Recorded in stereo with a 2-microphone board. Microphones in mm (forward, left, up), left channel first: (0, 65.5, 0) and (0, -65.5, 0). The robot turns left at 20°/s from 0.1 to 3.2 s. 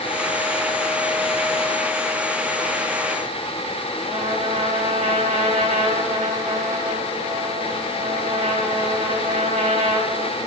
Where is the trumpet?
85° right, 4 m.